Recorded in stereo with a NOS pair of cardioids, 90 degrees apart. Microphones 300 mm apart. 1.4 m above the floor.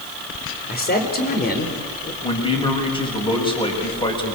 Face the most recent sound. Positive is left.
turn(degrees=15)